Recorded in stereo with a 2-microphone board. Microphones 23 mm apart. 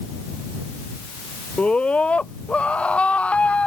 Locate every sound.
1.6 s a scream: 65° left (ahead or behind)